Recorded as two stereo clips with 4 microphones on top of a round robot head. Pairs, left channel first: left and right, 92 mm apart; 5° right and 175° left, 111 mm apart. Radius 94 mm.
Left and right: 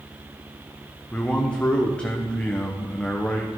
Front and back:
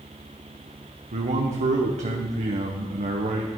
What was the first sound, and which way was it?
A man speaking, 170° left.